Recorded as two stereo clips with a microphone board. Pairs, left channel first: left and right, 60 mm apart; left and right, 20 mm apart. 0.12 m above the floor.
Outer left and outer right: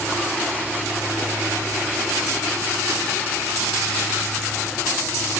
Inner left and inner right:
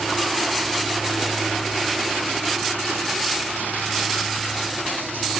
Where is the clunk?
No clunk in this recording.